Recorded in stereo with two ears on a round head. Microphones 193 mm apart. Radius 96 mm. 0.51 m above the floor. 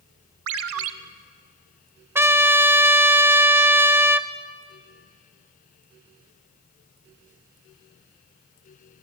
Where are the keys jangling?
I don't hear keys jangling.